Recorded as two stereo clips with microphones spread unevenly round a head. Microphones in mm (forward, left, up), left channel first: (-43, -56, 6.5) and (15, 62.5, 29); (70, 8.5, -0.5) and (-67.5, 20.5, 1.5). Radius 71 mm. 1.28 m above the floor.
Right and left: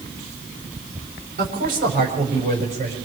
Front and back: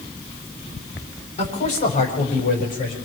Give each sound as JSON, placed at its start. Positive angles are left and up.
{"t": 1.4, "sound": "a man speaking", "azimuth_deg": 35, "distance_m": 5.0}